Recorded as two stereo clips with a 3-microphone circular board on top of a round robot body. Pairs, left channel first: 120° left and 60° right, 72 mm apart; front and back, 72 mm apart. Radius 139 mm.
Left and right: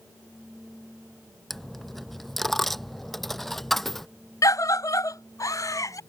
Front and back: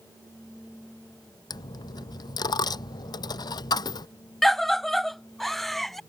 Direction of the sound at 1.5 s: 30° left.